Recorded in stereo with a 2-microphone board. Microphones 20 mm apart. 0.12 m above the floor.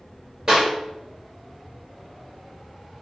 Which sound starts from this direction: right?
A clap, at 0.5 s.